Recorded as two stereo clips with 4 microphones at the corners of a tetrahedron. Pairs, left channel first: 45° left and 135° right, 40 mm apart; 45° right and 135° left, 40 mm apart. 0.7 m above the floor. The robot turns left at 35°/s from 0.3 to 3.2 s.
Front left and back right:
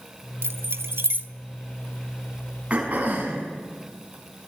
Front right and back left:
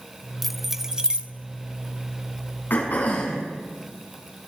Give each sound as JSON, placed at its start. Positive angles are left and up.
{"t": 0.4, "sound": "keys jangling", "azimuth_deg": -130, "distance_m": 0.9}
{"t": 2.7, "sound": "throat clearing", "azimuth_deg": -75, "distance_m": 6.0}